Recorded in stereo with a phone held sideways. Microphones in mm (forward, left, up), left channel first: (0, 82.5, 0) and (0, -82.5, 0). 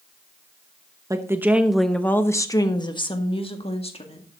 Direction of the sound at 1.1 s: 20° right (ahead or behind).